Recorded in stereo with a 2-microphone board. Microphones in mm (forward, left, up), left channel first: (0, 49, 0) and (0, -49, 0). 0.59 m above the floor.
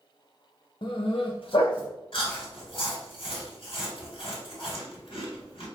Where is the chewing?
65° left (ahead or behind), 2.5 m.